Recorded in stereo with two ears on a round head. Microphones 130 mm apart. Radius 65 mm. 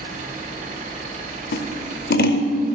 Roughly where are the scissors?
Left.